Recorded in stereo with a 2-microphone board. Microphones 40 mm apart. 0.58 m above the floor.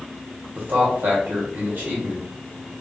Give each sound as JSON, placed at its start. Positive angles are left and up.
{"t": 0.6, "sound": "a man speaking", "side_deg": -55, "distance_m": 1.4}